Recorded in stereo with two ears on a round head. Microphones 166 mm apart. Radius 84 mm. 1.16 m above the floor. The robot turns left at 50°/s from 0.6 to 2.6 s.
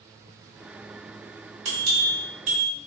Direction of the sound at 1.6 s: 85° right.